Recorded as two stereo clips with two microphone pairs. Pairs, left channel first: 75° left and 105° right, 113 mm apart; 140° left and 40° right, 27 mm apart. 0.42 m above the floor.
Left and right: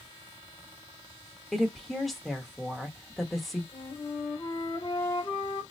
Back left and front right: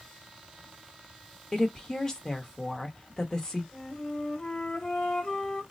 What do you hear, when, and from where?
1.5 s a woman speaking: 160° left, 0.8 m
3.7 s a flute: 80° left, 1.3 m